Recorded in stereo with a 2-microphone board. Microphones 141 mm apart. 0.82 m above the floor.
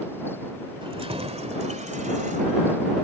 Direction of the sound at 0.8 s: 40° right (ahead or behind).